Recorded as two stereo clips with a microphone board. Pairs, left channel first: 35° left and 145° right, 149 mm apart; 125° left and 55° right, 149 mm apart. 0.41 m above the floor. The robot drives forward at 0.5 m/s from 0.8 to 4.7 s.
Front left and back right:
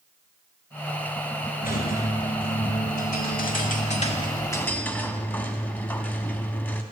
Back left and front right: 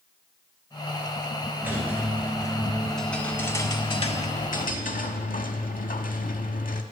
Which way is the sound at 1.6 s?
20° left.